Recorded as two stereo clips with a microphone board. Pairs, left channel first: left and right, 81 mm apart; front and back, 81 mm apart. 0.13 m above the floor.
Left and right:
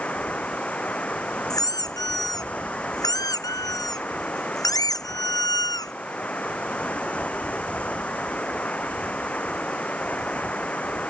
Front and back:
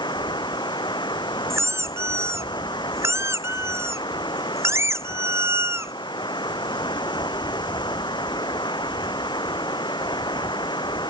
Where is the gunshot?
No gunshot in this recording.